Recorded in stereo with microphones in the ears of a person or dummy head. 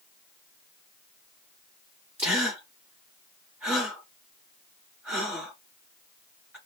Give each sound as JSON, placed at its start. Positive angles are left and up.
{"t": 2.2, "sound": "a gasp", "side_deg": -10, "distance_m": 1.5}